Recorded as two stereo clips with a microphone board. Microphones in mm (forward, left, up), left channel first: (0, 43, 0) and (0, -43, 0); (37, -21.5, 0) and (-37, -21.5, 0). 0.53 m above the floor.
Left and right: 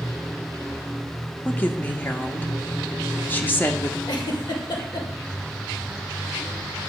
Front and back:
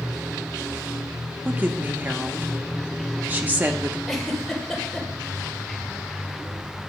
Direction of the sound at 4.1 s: 85° left.